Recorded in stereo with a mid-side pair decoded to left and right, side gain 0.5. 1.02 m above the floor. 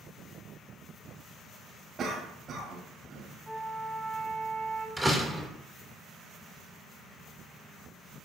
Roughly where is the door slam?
Ahead.